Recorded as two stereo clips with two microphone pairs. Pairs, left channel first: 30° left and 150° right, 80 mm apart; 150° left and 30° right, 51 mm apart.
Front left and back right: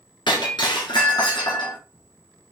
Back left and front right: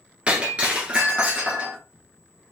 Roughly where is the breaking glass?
Ahead left.